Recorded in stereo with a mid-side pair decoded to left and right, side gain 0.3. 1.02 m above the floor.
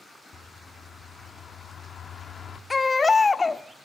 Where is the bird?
60° left, 1.6 m.